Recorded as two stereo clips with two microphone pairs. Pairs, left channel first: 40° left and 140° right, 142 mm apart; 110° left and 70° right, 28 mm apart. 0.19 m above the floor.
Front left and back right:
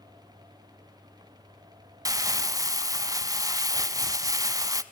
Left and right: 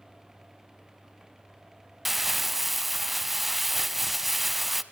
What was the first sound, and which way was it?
Crumpling, 140° right.